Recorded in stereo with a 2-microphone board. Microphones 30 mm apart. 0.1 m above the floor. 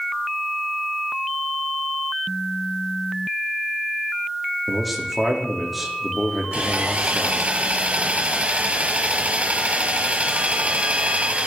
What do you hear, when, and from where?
4.7 s a man speaking: centre (ahead or behind), 5 m
6.5 s sawing: 50° right (ahead or behind), 1.6 m